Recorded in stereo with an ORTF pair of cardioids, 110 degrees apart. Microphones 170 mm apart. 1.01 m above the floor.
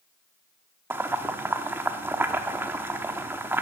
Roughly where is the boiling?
Ahead.